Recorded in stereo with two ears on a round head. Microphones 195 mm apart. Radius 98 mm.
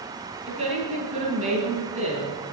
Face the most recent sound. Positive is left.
turn(degrees=-30)  # may be behind; listen again after turning